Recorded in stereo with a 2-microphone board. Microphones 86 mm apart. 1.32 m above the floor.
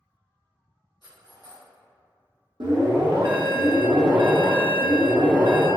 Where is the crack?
I don't hear a crack.